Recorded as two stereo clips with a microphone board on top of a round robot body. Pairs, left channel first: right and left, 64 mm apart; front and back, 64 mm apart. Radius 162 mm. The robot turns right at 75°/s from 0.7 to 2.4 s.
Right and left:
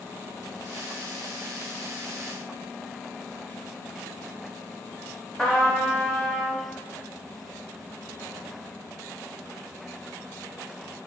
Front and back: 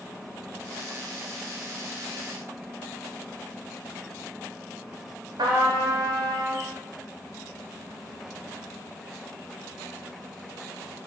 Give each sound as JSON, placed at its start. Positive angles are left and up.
{"t": 5.4, "sound": "a trumpet", "azimuth_deg": -170, "distance_m": 0.7}